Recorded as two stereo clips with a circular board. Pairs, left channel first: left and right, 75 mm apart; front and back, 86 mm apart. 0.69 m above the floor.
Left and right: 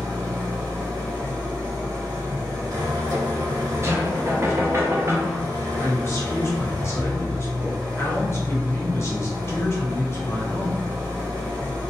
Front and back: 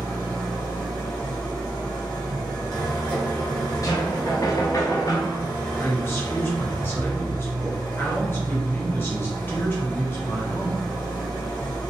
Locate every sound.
0.0 s an engine running: 65° right, 1.3 m
3.8 s knocking: 40° right, 0.5 m
5.8 s a man speaking: 50° left, 0.8 m